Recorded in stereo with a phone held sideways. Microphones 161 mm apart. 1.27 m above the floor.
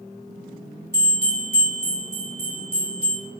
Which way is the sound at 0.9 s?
75° right (ahead or behind).